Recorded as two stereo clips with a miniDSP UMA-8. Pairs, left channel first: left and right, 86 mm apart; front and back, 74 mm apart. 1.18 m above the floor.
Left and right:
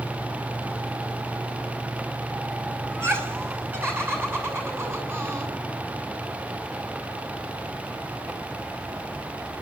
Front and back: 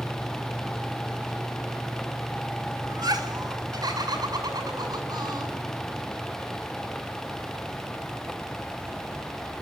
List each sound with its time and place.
2.9 s laughter: 150° right, 6 m